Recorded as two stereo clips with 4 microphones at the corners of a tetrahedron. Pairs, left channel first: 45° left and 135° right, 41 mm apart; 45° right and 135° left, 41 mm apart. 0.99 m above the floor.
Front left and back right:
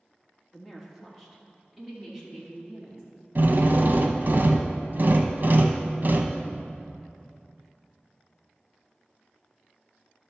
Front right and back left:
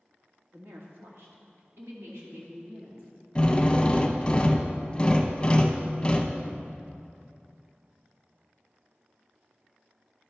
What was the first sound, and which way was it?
A woman speaking, 130° left.